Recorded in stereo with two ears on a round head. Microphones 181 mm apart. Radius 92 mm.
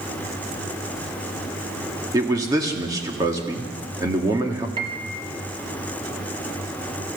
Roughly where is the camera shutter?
No camera shutter in this recording.